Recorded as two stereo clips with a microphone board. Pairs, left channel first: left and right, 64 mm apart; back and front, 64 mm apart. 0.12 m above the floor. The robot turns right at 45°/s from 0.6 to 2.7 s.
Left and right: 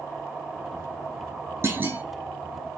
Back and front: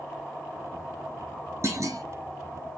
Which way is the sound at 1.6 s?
40° right.